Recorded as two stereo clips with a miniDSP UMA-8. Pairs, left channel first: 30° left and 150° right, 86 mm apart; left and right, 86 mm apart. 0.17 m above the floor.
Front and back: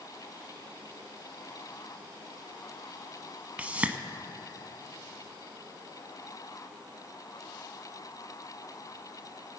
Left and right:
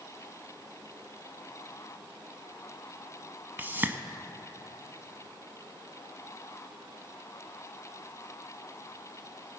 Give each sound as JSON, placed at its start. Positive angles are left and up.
{"t": 3.6, "sound": "a whoosh", "azimuth_deg": -100, "distance_m": 0.5}